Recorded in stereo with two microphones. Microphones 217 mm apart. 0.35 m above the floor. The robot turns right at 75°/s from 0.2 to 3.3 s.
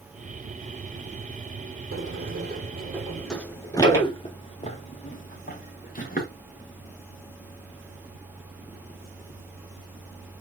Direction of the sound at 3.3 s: 5° left (ahead or behind).